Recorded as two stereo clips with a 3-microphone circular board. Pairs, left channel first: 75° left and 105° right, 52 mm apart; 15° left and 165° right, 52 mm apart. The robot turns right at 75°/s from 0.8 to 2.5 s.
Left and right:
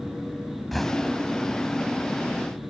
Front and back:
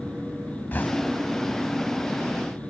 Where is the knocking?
10° right; by 2.7 s 120° left.